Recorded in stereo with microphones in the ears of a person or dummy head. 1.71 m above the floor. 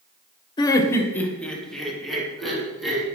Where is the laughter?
25° left (ahead or behind), 0.8 m; by 3.0 s 5° right (ahead or behind), 3 m.